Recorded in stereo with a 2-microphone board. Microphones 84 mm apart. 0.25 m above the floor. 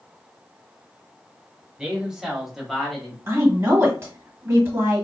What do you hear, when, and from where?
1.8 s a man speaking: 10° right (ahead or behind), 1.0 m; by 3.2 s 10° left (ahead or behind), 0.9 m
3.3 s a woman speaking: 30° right (ahead or behind), 1.4 m